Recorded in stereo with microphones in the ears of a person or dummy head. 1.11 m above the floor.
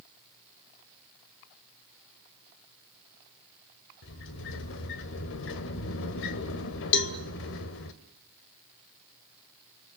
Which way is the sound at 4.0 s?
65° left (ahead or behind).